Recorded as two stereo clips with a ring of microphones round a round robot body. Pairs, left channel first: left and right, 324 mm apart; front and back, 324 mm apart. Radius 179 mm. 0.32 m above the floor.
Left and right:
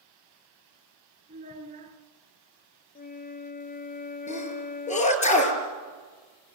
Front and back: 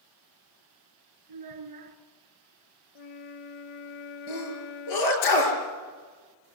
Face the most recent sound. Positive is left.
turn(degrees=20)